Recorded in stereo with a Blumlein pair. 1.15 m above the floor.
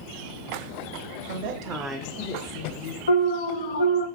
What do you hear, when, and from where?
1.3 s a woman speaking: 60° right, 0.8 m; by 3.0 s 50° left, 1.3 m
3.1 s an alarm: 70° left, 0.6 m